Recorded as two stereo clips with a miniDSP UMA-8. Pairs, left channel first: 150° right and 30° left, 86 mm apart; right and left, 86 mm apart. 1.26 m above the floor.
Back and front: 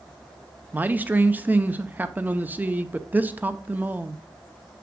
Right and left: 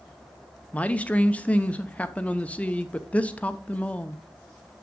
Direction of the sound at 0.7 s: 25° right.